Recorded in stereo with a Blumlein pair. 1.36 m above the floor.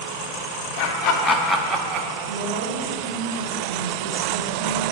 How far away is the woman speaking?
About 1.1 m.